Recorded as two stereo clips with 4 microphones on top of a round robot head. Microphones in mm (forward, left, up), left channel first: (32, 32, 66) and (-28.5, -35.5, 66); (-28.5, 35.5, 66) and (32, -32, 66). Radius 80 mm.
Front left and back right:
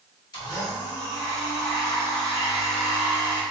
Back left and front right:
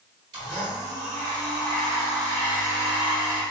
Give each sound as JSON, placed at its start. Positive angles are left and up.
{"t": 0.3, "sound": "a blender", "azimuth_deg": 0, "distance_m": 2.0}